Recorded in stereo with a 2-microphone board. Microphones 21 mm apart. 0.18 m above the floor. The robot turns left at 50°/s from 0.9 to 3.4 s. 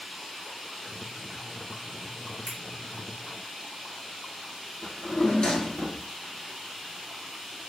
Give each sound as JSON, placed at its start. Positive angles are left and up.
{"t": 2.5, "sound": "a finger snap", "side_deg": -45, "distance_m": 2.0}
{"t": 4.8, "sound": "a drawer", "side_deg": 50, "distance_m": 0.9}